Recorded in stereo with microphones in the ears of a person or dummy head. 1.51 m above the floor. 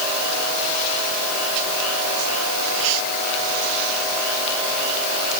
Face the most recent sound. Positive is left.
No sound to turn to.